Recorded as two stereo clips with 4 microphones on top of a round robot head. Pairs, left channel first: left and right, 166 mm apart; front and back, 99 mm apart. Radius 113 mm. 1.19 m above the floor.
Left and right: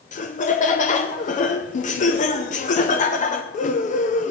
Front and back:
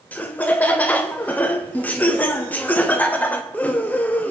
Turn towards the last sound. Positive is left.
turn(degrees=70)